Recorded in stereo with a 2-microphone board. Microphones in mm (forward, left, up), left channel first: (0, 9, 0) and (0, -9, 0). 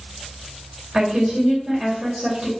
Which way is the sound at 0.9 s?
55° right (ahead or behind).